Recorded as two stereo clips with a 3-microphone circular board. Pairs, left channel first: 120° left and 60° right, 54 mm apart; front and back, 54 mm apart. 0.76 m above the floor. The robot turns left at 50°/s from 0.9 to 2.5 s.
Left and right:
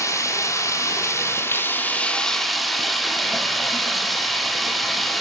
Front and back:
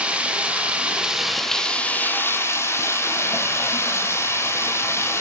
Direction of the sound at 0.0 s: 110° left.